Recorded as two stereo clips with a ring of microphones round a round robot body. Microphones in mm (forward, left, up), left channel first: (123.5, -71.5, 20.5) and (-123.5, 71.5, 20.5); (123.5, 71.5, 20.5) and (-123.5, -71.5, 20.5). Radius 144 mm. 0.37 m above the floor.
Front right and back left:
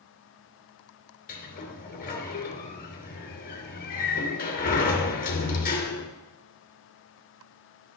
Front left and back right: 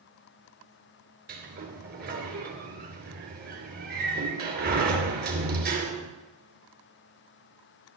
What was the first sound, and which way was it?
A sliding door, 90° right.